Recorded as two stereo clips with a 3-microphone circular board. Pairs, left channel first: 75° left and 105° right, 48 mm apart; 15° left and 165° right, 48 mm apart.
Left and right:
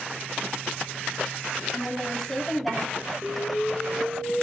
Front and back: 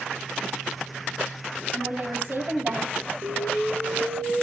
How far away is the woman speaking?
About 4.5 m.